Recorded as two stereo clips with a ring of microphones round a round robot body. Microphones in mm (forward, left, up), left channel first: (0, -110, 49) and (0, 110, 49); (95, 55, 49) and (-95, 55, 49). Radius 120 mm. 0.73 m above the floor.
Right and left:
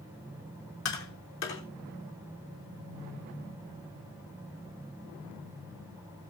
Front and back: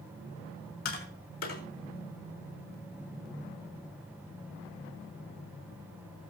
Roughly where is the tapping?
Ahead right.